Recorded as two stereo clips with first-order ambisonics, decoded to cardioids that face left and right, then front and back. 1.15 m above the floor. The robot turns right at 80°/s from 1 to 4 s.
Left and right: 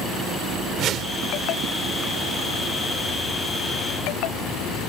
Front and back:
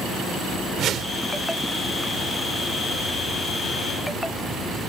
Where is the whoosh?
135° right; by 1.2 s 120° right.